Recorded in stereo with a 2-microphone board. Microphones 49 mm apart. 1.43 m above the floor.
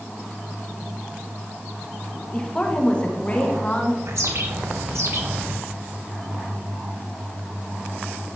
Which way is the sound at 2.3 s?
20° left (ahead or behind).